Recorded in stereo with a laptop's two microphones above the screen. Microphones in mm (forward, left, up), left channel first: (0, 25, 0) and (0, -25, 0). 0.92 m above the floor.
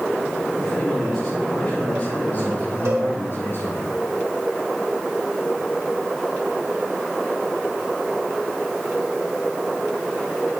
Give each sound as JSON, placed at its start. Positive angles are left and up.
{"t": 0.6, "sound": "a man speaking", "side_deg": 0, "distance_m": 4.0}
{"t": 2.9, "sound": "a cowbell", "side_deg": -70, "distance_m": 3.0}